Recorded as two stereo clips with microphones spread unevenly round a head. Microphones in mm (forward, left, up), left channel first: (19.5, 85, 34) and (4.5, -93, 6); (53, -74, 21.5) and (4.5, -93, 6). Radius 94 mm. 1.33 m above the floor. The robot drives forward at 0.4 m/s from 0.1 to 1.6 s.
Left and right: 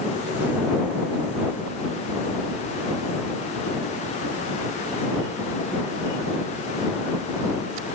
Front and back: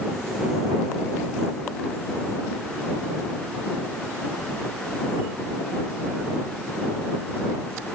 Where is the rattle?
I don't hear a rattle.